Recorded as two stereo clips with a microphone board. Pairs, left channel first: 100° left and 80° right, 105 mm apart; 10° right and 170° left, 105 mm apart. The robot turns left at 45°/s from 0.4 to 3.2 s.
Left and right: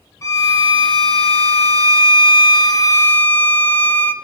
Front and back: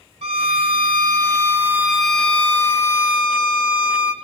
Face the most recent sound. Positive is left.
turn(degrees=30)